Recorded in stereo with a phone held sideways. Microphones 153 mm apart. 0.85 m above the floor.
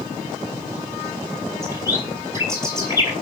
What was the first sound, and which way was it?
A bird, 20° right (ahead or behind).